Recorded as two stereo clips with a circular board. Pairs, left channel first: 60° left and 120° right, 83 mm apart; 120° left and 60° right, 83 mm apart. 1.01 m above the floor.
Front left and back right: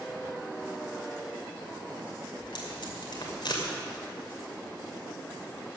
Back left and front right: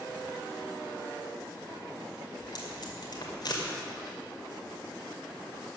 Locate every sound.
2.4 s tape being pulled: 85° left, 2.5 m